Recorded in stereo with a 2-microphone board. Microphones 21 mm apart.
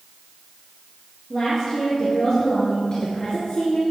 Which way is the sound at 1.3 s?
15° left (ahead or behind).